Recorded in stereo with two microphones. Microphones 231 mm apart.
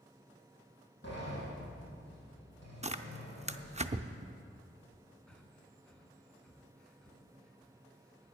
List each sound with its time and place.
1.0 s a sliding door: 45° left (ahead or behind), 5 m
2.8 s tearing paper: 25° right (ahead or behind), 0.5 m
5.3 s breathing: 5° left (ahead or behind), 1.3 m